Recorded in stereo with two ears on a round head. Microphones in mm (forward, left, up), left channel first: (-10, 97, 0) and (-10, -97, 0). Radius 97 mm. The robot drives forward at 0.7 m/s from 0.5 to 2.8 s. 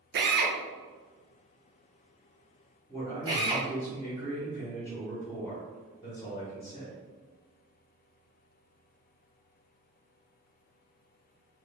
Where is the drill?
50° right (ahead or behind), 0.6 m; by 3.7 s 20° right (ahead or behind), 1.3 m.